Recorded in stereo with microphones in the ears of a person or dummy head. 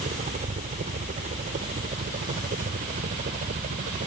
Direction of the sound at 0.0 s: 40° right (ahead or behind).